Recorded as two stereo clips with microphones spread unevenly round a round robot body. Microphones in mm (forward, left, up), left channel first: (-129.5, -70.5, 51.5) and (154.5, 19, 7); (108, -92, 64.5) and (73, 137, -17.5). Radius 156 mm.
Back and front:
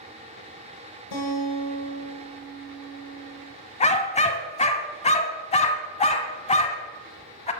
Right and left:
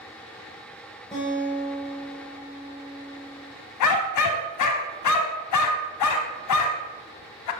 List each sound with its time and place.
1.1 s a guitar: 160° right, 8.5 m
3.8 s a dog barking: 90° right, 1.1 m